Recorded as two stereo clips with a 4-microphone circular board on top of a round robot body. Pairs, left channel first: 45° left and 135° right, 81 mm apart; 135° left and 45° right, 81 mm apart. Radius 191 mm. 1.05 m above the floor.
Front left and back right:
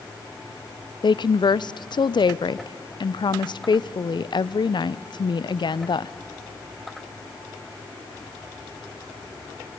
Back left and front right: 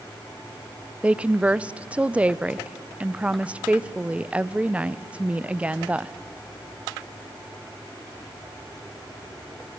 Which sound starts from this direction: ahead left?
A woman speaking, at 1.0 s.